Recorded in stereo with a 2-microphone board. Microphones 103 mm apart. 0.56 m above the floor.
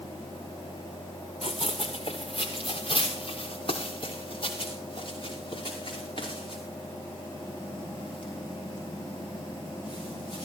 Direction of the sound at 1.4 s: 65° left (ahead or behind).